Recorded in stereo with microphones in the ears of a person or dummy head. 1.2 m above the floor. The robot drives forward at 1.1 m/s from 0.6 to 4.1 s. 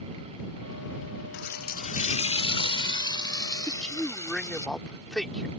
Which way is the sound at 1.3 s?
55° left (ahead or behind).